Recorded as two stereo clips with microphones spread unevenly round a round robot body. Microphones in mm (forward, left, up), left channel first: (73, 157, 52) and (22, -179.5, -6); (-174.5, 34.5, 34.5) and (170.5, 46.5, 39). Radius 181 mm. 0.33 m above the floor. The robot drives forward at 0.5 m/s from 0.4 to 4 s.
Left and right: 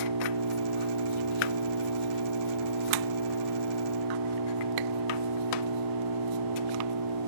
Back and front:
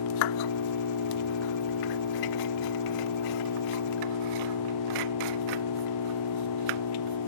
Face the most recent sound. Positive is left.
turn(degrees=-135)